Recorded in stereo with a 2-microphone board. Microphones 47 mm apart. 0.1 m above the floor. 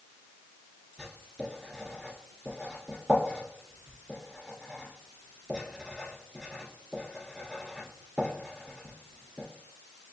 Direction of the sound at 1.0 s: 5° right (ahead or behind).